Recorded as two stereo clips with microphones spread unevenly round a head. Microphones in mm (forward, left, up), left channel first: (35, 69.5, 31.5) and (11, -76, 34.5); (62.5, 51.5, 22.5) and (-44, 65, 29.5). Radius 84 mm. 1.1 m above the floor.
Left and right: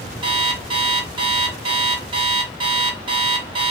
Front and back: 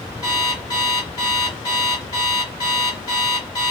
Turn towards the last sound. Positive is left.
turn(degrees=-65)